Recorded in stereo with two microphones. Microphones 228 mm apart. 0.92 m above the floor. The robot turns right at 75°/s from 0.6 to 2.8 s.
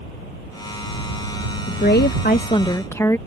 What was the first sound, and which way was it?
A woman speaking, 80° left.